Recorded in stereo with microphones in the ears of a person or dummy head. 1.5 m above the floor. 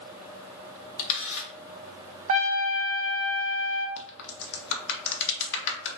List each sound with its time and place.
1.0 s a camera shutter: 75° left (ahead or behind), 0.8 m
2.3 s a trumpet: 35° right (ahead or behind), 0.6 m
4.0 s a crack: 70° left (ahead or behind), 0.8 m